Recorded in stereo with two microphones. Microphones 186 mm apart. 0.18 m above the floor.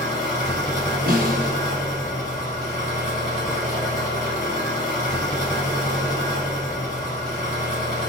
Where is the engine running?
50° left (ahead or behind), 1.8 m.